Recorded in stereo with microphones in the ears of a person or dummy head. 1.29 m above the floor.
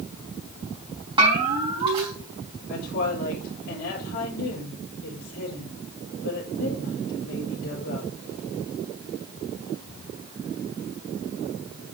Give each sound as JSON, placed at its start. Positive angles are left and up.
{"t": 1.2, "sound": "a bell", "side_deg": -25, "distance_m": 4.0}
{"t": 2.7, "sound": "a woman speaking", "side_deg": 70, "distance_m": 5.0}